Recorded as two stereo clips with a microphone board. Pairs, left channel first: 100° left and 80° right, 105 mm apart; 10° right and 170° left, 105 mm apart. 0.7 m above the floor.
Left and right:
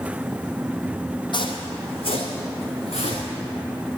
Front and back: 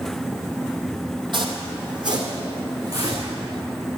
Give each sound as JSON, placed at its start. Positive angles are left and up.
{"t": 1.3, "sound": "footsteps", "azimuth_deg": 135, "distance_m": 1.6}